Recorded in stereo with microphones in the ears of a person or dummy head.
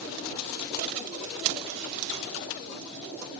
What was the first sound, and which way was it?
Only background noise.